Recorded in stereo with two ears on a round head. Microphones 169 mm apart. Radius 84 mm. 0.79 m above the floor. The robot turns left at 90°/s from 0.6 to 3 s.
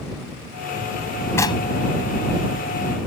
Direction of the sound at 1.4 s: 15° left (ahead or behind).